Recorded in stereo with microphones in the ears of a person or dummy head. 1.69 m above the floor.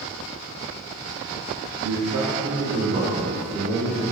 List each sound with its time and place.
1.8 s a man speaking: 80° right, 0.6 m; by 4.0 s 60° right (ahead or behind), 3 m